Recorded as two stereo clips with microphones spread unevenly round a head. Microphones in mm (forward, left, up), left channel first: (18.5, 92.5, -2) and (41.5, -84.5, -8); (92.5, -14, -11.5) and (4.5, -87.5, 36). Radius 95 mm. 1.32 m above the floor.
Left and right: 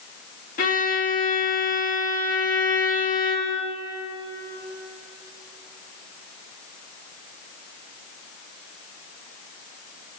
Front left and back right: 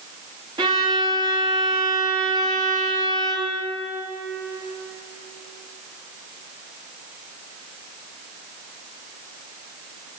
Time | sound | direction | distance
0.6 | a violin | 150° left | 2.5 m